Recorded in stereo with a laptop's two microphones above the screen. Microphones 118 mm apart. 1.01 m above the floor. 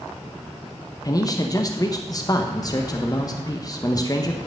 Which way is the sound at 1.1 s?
30° left (ahead or behind).